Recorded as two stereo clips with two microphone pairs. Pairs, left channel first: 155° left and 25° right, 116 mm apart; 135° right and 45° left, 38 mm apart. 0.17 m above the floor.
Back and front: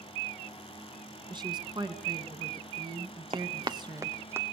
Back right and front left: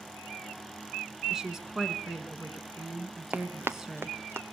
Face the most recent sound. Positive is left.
turn(degrees=45)